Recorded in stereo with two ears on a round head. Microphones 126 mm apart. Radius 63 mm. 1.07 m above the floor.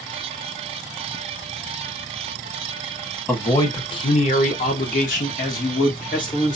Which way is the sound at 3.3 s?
15° left (ahead or behind).